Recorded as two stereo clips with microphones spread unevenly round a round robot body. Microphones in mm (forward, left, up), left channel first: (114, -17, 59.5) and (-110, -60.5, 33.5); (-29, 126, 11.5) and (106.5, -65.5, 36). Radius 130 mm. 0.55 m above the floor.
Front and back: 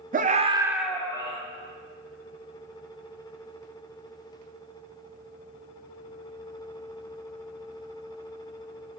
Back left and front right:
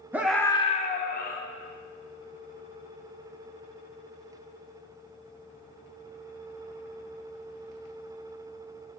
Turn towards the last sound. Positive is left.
turn(degrees=85)